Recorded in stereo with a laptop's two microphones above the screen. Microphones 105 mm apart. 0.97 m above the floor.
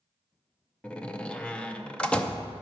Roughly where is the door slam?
Centre.